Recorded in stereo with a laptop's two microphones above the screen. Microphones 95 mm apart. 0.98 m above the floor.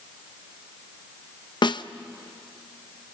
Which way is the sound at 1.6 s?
60° left (ahead or behind).